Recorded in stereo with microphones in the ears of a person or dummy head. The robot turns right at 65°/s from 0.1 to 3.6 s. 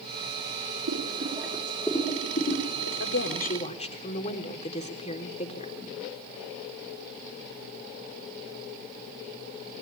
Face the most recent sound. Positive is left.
turn(degrees=140)